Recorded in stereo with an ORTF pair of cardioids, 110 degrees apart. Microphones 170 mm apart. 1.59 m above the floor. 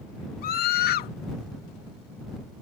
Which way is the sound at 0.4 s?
65° left.